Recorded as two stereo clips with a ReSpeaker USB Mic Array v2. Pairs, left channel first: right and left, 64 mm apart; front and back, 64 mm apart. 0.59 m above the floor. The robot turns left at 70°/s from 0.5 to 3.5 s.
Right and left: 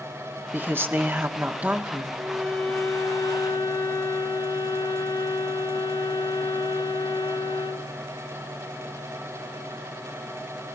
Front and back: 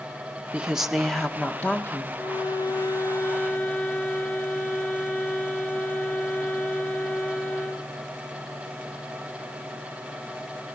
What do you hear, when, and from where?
0.5 s a woman speaking: 120° left, 1.4 m; by 2.1 s 10° left, 1.4 m
2.2 s a violin: 20° left, 1.4 m; by 7.9 s 70° right, 1.4 m